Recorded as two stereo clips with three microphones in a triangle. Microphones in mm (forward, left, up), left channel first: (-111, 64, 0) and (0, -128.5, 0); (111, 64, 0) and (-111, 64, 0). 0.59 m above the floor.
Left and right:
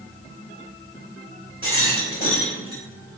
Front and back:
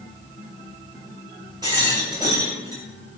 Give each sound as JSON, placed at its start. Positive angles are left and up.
{"t": 1.6, "sound": "a rattle", "azimuth_deg": 110, "distance_m": 1.8}